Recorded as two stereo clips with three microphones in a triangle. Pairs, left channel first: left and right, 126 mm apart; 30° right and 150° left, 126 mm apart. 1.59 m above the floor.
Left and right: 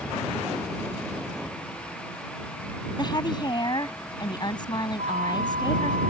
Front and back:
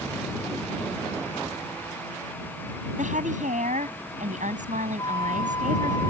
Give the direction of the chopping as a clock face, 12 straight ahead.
I don't hear chopping.